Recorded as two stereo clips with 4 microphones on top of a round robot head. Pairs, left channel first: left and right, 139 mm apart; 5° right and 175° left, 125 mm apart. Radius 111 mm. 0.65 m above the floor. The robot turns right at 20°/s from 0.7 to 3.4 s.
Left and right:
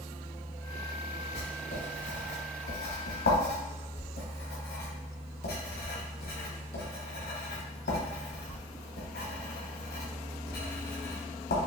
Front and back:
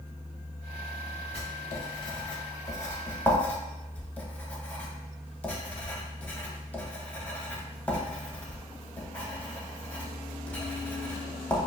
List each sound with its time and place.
1.3 s writing: 35° left, 1.1 m; by 11.6 s 75° left, 1.1 m